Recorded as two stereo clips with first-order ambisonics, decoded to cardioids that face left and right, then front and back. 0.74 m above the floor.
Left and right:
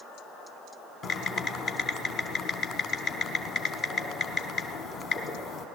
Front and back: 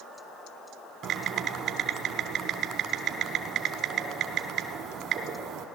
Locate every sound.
1.0 s typing on a keyboard: 135° left, 0.9 m